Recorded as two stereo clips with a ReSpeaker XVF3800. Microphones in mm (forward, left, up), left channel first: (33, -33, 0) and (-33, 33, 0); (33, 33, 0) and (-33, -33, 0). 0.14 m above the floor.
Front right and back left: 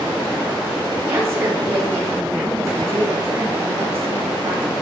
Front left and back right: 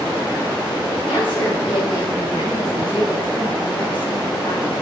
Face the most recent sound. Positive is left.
turn(degrees=75)